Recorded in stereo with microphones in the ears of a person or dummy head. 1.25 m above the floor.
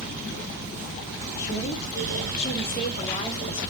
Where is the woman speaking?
45° left (ahead or behind), 1.1 m; by 3.7 s 20° left (ahead or behind), 2 m.